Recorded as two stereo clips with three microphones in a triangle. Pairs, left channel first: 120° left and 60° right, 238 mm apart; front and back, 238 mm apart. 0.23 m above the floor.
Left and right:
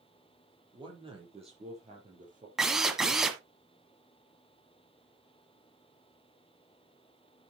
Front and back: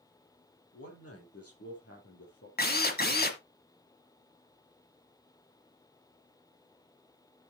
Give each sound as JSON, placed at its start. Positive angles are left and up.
{"t": 0.7, "sound": "a man speaking", "azimuth_deg": 10, "distance_m": 5.5}
{"t": 2.6, "sound": "a drill", "azimuth_deg": 30, "distance_m": 1.4}